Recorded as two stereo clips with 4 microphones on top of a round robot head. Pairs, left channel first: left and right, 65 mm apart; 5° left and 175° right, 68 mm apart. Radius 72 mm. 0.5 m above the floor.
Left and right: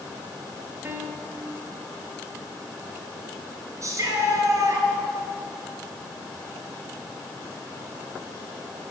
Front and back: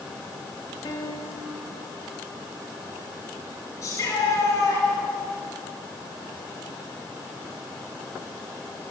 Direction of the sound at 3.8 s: 50° right.